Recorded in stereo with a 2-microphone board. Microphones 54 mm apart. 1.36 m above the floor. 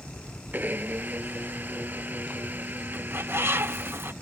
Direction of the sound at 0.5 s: 35° right (ahead or behind).